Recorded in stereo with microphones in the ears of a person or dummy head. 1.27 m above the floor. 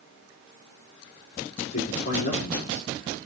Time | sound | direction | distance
1.6 | a man speaking | 45° left (ahead or behind) | 3 m